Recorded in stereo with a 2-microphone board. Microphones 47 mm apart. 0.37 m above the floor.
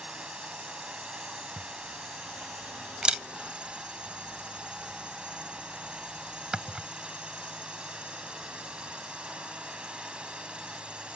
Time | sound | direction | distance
0.0 | a drone | 20° right (ahead or behind) | ?
1.6 | a camera shutter | 20° right (ahead or behind) | ?